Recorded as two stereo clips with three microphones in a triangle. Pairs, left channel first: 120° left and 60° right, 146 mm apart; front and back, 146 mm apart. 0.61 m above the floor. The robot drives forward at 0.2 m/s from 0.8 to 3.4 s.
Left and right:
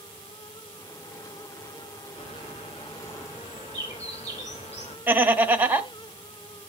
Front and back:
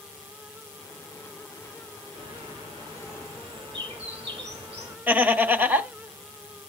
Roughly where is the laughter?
Behind right.